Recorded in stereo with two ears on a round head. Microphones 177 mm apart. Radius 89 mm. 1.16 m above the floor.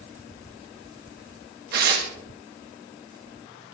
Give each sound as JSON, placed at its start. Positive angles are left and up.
{"t": 1.7, "sound": "tearing paper", "side_deg": -50, "distance_m": 2.0}